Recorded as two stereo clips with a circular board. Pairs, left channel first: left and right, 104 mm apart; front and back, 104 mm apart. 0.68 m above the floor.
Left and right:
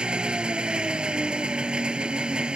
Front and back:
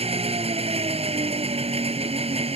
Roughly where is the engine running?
Behind.